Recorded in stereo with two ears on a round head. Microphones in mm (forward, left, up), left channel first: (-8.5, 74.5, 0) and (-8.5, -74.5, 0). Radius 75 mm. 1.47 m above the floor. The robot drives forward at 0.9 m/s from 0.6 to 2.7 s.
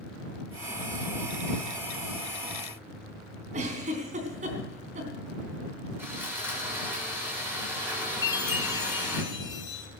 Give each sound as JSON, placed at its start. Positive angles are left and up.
{"t": 3.5, "sound": "a giggle", "side_deg": -45, "distance_m": 3.5}
{"t": 6.0, "sound": "sawing", "side_deg": -15, "distance_m": 6.5}
{"t": 8.2, "sound": "a chime", "side_deg": 25, "distance_m": 3.0}